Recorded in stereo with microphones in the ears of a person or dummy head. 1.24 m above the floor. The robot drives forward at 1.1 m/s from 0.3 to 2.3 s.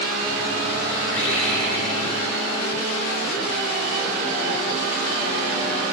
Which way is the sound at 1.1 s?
85° left.